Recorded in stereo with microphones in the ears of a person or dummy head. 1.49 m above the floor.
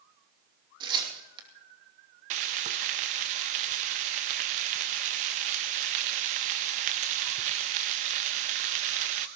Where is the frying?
35° right (ahead or behind), 0.8 m.